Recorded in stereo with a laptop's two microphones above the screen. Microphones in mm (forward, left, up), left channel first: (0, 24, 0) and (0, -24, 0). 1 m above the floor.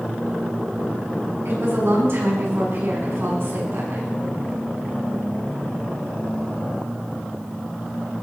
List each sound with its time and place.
1.4 s a woman speaking: 60° right (ahead or behind), 8.5 m